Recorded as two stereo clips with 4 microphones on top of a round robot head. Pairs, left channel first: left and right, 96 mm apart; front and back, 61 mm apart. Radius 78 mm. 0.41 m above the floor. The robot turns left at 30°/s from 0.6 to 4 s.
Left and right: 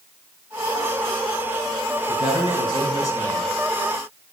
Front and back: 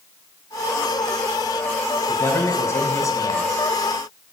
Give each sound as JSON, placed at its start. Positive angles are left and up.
{"t": 2.1, "sound": "a man speaking", "azimuth_deg": 60, "distance_m": 3.5}